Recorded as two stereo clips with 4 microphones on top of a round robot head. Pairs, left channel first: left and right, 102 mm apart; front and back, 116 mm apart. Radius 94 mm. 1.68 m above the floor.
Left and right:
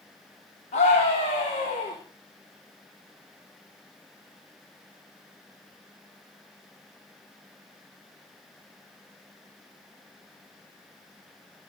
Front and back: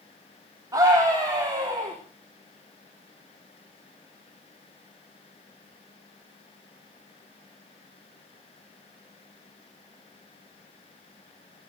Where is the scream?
120° left, 3.5 m.